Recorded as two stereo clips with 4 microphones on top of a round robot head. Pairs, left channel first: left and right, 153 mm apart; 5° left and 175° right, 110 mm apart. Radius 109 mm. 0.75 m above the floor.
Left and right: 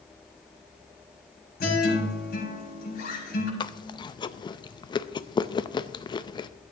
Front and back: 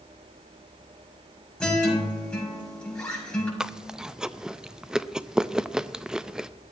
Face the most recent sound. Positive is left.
turn(degrees=105)